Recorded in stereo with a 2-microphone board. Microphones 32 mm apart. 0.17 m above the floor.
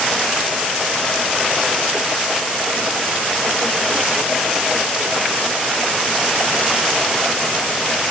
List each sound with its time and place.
Only background noise.